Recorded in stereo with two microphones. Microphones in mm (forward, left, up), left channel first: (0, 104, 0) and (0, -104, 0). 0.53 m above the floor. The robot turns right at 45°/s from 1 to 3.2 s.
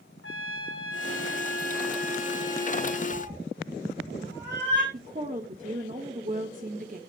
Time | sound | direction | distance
0.2 | a trumpet | 95° left | 1.6 m
3.1 | a cat meowing | 65° right (ahead or behind) | 4 m
4.9 | a woman speaking | 40° right (ahead or behind) | 1.3 m